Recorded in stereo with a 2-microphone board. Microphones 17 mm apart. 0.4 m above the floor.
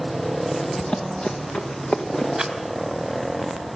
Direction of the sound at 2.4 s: 30° right (ahead or behind).